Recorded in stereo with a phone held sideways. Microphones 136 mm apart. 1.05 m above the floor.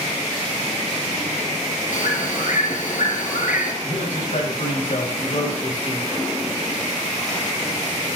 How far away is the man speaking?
About 7.5 m.